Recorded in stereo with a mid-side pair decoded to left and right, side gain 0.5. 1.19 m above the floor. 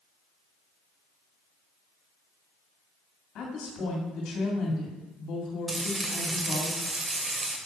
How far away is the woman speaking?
About 2.5 m.